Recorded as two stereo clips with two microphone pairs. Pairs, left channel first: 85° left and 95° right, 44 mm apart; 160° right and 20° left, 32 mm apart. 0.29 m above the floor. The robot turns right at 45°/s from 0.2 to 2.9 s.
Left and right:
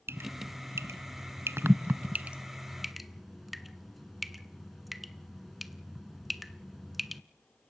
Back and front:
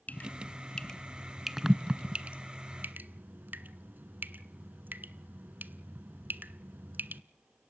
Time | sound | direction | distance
0.1 | dripping | 125° right | 0.5 m